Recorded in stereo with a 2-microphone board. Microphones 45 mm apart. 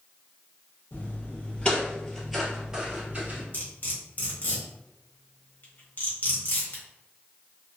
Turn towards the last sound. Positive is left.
turn(degrees=45)  # may be behind; listen again after turning